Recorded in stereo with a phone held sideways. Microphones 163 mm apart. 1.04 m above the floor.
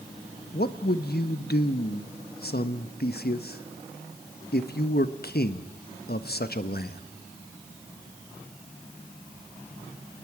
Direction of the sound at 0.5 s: 80° left.